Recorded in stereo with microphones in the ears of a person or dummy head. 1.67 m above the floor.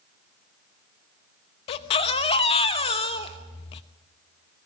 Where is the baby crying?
35° left (ahead or behind), 1.1 m.